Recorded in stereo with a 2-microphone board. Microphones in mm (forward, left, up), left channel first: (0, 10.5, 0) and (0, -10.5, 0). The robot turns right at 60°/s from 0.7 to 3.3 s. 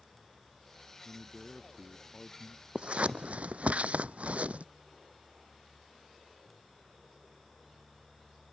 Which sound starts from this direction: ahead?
A man speaking, at 1.1 s.